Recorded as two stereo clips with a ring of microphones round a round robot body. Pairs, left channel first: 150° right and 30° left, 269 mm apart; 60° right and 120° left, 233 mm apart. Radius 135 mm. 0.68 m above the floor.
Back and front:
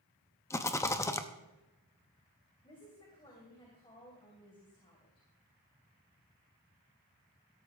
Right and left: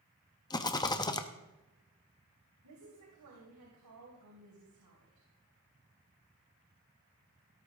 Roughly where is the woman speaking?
Behind left.